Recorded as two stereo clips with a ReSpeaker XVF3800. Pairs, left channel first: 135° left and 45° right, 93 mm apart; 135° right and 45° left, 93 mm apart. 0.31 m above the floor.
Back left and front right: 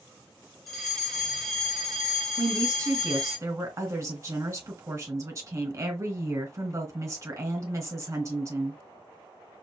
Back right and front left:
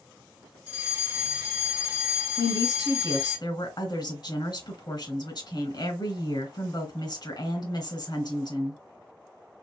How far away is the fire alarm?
About 2.5 m.